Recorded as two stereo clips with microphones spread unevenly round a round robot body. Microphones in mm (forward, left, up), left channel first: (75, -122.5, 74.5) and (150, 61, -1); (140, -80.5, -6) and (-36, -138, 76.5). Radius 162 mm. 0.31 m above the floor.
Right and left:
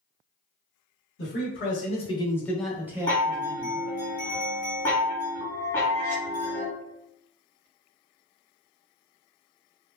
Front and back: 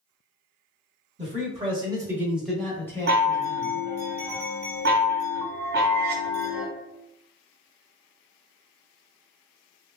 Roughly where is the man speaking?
Right.